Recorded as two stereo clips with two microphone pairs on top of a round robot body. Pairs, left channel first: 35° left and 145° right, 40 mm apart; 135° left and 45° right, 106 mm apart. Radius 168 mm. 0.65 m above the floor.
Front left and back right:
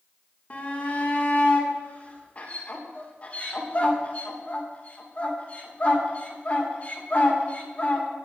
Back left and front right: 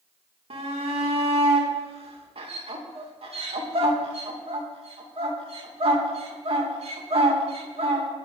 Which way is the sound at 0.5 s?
20° right.